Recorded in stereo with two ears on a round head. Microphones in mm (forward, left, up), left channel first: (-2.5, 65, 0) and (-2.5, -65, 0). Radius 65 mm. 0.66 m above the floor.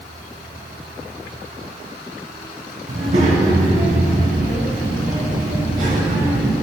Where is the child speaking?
50° right (ahead or behind), 3.5 m; by 6.5 s 60° right (ahead or behind), 7 m.